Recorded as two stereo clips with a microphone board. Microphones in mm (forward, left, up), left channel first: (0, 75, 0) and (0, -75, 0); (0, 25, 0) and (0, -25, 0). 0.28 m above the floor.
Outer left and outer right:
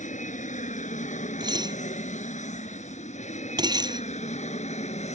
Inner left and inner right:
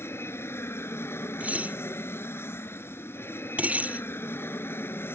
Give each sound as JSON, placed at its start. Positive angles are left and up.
{"t": 0.0, "sound": "an aircraft", "side_deg": 55}
{"t": 1.4, "sound": "dishes clattering", "side_deg": -30}